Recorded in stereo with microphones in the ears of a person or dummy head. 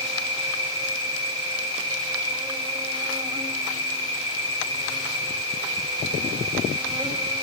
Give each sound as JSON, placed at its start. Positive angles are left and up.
{"t": 0.0, "sound": "an insect", "side_deg": -25, "distance_m": 3.0}